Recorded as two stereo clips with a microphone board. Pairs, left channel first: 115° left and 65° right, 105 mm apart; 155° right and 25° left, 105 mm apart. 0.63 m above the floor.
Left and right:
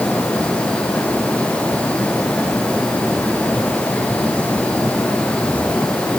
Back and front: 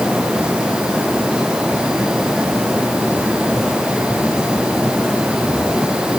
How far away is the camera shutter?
I don't hear a camera shutter.